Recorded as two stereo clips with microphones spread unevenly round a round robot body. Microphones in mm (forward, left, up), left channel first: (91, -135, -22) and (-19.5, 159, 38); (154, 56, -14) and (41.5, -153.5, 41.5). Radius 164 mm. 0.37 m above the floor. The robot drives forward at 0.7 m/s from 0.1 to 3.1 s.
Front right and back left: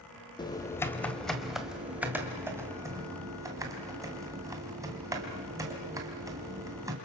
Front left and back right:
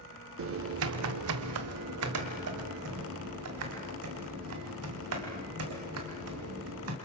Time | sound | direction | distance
0.4 | typing on a keyboard | 125° right | 1.2 m